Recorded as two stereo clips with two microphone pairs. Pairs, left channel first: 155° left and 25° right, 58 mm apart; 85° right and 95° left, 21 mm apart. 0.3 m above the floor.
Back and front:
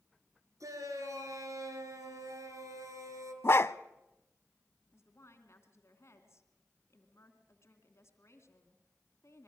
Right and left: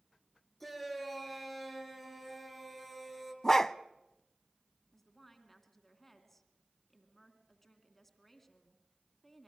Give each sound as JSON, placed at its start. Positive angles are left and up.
{"t": 0.6, "sound": "a shout", "azimuth_deg": -10, "distance_m": 5.0}
{"t": 3.4, "sound": "a dog barking", "azimuth_deg": -165, "distance_m": 0.5}
{"t": 4.9, "sound": "a woman speaking", "azimuth_deg": -175, "distance_m": 2.5}